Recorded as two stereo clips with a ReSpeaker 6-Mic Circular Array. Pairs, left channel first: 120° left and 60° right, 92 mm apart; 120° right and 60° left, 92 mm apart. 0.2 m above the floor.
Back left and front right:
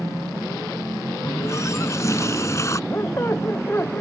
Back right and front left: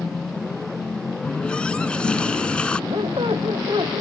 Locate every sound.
1.2 s a running tap: 165° left
2.9 s a squeak: 60° left